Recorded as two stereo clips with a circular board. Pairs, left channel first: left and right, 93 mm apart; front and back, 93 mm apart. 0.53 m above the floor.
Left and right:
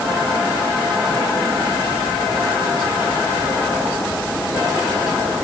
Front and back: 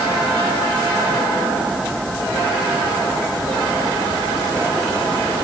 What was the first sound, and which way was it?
Only background noise.